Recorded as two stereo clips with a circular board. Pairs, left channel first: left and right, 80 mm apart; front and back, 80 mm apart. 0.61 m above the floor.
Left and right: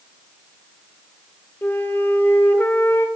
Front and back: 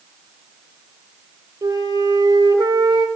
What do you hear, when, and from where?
1.6 s a flute: 150° left, 1.3 m